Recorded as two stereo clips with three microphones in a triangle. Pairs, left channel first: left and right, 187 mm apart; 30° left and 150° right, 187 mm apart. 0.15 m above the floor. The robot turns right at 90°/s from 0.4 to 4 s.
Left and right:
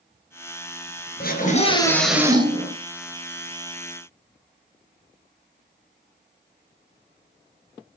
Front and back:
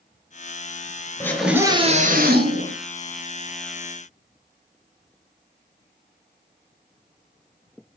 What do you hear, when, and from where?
1.2 s a scream: 100° left, 3 m; by 2.8 s 115° right, 3 m